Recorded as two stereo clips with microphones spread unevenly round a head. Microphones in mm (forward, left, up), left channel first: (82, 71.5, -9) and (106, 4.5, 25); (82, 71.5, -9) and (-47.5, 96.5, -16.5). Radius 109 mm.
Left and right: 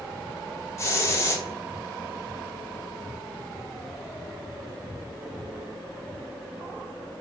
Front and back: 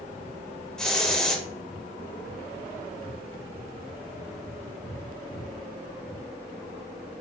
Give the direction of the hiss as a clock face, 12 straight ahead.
9 o'clock.